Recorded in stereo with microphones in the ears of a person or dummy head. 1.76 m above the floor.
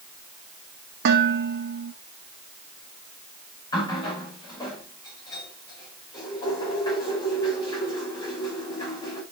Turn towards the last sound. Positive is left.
turn(degrees=20)  # may be behind; listen again after turning